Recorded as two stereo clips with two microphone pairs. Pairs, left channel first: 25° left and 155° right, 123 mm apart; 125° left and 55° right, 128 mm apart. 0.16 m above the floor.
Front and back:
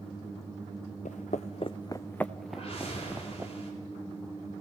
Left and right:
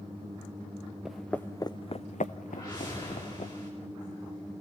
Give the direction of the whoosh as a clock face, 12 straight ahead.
10 o'clock.